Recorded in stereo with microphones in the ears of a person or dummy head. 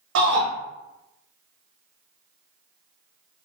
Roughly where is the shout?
Right.